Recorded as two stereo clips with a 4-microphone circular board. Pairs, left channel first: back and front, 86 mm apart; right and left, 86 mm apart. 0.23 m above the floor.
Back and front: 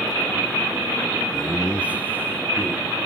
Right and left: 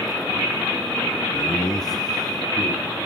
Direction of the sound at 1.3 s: 95° right.